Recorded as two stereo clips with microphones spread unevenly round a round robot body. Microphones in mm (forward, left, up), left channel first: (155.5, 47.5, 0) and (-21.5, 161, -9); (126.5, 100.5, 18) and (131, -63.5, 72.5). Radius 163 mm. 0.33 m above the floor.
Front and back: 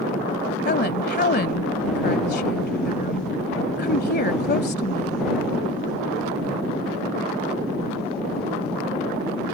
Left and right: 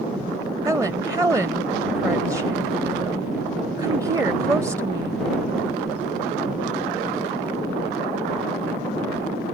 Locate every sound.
0.7 s a woman speaking: 5° right